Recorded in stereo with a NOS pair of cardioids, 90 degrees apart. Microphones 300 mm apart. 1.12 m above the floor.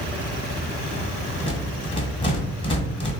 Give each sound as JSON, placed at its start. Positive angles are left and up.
{"t": 1.4, "sound": "a rattle", "azimuth_deg": 20, "distance_m": 0.9}